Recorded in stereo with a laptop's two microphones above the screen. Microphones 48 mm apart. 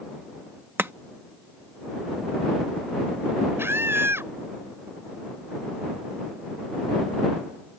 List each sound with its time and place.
0.8 s chopping: 50° right (ahead or behind)
3.6 s a scream: 55° right (ahead or behind)